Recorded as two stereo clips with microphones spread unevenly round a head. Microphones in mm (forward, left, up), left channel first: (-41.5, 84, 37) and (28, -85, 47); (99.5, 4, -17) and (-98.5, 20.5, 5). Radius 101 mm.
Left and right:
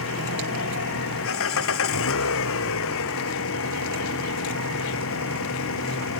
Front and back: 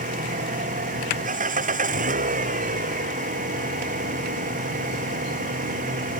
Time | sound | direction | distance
0.0 | an engine running | 120° left | ?